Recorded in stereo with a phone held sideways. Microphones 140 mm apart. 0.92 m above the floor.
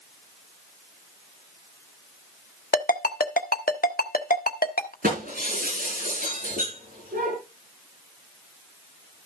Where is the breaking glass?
75° right (ahead or behind), 8.5 m.